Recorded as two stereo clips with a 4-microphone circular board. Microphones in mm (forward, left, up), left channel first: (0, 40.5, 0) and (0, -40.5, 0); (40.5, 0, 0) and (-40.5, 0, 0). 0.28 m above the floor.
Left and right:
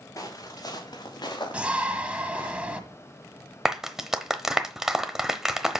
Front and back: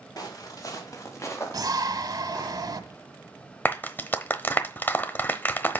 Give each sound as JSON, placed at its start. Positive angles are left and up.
{"t": 0.2, "sound": "footsteps", "azimuth_deg": 40, "distance_m": 3.0}
{"t": 1.5, "sound": "a shout", "azimuth_deg": -160, "distance_m": 1.5}
{"t": 3.6, "sound": "a clap", "azimuth_deg": -15, "distance_m": 0.9}